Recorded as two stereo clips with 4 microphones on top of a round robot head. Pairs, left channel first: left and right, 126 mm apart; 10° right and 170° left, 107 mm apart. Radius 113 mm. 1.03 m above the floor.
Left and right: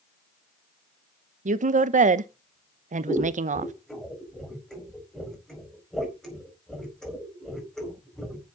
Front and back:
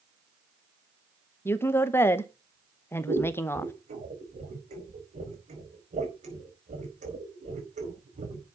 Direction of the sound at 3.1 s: 175° left.